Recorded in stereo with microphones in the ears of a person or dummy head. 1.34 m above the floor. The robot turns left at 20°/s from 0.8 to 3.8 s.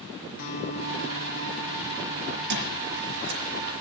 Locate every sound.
0.4 s a guitar: 40° left, 6 m; by 2.4 s 10° left, 6 m
2.5 s a squeak: 65° right (ahead or behind), 6 m; by 3.4 s 50° right (ahead or behind), 6 m